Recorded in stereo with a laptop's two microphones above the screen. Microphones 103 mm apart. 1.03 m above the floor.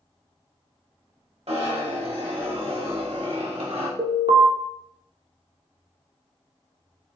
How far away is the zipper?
About 1.0 m.